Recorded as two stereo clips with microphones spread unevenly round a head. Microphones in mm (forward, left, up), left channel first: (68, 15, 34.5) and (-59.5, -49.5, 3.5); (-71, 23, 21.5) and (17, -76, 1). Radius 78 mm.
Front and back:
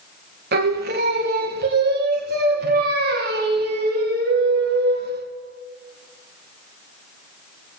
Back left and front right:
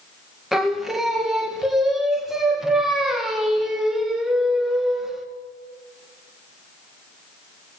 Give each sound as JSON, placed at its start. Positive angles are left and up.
{"t": 0.5, "sound": "singing", "azimuth_deg": -135, "distance_m": 2.5}